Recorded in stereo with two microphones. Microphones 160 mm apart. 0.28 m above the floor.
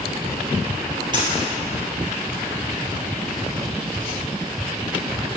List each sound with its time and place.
1.1 s a dropped coin: 30° right (ahead or behind), 2 m